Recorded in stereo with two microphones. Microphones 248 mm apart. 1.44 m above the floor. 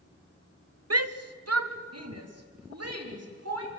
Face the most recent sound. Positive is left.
turn(degrees=-80)